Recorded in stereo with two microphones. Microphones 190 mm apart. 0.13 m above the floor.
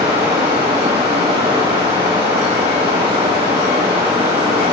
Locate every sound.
0.0 s running water: 30° right (ahead or behind), 2 m